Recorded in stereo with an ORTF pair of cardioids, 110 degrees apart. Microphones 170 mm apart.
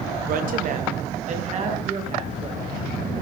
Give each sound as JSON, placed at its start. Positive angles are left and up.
{"t": 0.3, "sound": "a woman speaking", "azimuth_deg": -60, "distance_m": 0.9}